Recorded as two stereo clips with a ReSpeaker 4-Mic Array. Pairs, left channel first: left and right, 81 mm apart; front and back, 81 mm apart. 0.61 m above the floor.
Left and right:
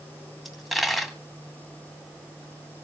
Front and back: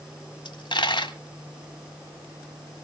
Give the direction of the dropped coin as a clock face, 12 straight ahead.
12 o'clock.